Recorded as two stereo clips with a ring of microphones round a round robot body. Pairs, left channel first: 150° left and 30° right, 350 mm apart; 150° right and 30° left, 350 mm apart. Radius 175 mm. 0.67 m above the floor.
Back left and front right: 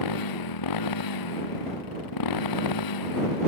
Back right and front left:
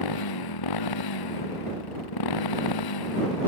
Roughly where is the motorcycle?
Behind.